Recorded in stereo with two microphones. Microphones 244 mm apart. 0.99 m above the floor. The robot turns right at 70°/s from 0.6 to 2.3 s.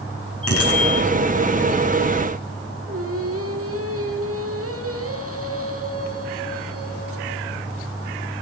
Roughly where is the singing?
Right.